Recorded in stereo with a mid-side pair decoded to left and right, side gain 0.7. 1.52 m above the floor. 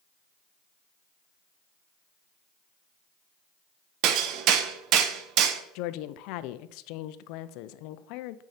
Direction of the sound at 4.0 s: 60° right.